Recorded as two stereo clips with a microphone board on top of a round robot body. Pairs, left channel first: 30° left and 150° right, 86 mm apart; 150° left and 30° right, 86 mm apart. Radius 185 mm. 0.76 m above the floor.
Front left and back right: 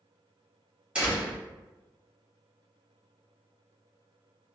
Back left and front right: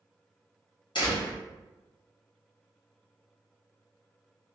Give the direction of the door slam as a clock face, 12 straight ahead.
8 o'clock.